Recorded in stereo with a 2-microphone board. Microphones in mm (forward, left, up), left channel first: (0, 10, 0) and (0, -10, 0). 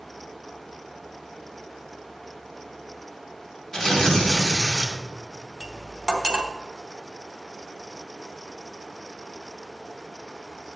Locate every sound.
3.7 s tearing paper: 35° left (ahead or behind), 1.8 m
5.6 s cutlery clinking: 35° right (ahead or behind), 1.0 m